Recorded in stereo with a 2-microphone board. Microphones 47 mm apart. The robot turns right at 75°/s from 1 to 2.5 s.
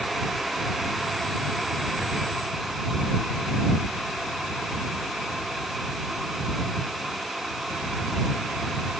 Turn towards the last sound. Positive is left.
No sound to turn to.